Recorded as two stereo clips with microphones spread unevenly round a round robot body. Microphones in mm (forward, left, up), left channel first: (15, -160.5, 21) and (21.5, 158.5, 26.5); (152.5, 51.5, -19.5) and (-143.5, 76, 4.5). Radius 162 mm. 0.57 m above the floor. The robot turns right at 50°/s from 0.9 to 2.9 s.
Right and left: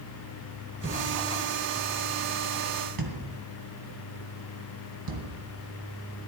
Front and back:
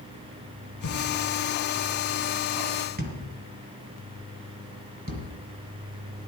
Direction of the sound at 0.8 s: 15° left.